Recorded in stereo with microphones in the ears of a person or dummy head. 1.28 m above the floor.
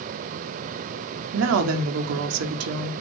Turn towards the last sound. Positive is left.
turn(degrees=-85)